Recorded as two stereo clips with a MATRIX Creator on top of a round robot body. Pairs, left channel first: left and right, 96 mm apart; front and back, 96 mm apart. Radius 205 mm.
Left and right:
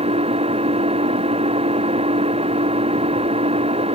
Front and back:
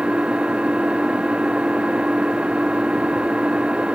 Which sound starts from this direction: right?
An engine running, at 0.0 s.